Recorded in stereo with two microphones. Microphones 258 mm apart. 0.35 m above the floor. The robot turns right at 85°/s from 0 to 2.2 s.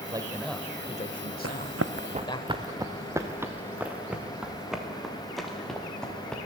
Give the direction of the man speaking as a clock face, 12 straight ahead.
1 o'clock.